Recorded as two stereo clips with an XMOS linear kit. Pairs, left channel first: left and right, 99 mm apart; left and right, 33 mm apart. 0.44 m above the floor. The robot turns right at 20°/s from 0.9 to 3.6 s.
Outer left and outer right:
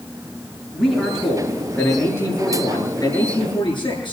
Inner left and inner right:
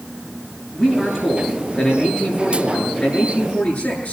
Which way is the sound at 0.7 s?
Straight ahead.